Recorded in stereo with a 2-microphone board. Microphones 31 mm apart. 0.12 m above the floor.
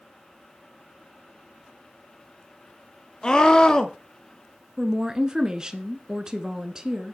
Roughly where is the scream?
Left.